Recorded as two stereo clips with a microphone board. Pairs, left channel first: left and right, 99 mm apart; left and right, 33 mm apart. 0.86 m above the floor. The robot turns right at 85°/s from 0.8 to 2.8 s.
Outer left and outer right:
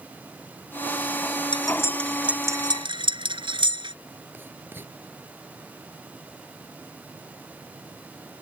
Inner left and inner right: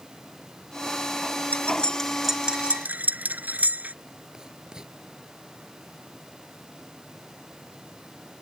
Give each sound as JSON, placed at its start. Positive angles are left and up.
{"t": 1.5, "sound": "cutlery clinking", "side_deg": 50}
{"t": 4.3, "sound": "writing", "side_deg": -20}